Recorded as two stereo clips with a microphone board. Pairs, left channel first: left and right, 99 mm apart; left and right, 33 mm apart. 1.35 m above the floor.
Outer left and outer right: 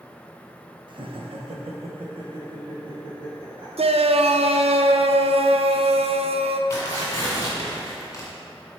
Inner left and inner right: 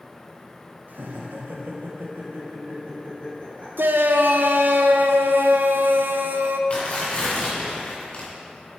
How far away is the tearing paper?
About 2 m.